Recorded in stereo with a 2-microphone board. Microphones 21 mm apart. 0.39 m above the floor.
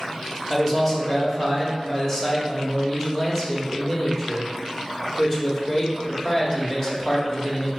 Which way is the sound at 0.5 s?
20° left (ahead or behind).